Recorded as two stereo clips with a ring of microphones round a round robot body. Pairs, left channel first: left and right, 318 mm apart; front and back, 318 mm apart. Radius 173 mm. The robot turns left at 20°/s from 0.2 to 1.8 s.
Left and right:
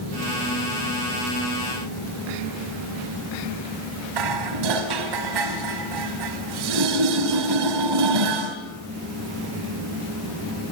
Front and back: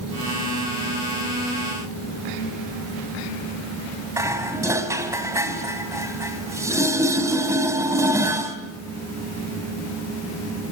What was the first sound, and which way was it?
Dishes clattering, 100° right.